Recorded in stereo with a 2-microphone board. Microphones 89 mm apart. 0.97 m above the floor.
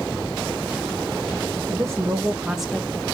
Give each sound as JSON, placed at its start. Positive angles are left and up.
{"t": 1.7, "sound": "a woman speaking", "side_deg": -35, "distance_m": 1.2}